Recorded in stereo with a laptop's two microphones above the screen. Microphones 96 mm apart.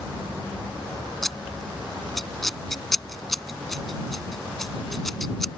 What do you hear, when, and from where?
1.2 s scissors: 5° left (ahead or behind)